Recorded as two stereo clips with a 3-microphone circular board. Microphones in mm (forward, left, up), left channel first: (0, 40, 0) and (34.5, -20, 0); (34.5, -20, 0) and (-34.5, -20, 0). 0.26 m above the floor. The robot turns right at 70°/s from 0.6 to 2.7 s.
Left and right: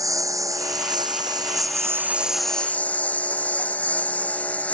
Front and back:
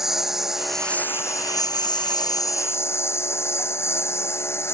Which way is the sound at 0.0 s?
95° right.